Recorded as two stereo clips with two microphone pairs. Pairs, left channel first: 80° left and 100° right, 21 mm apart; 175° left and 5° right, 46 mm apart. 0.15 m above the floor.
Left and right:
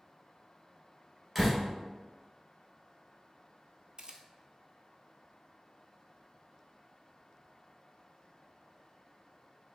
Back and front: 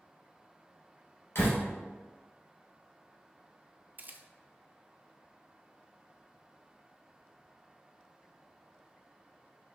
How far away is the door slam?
About 1.9 m.